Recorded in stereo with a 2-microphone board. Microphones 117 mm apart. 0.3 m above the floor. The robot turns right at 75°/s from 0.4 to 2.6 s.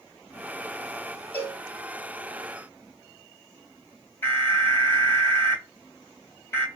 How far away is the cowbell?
About 2 m.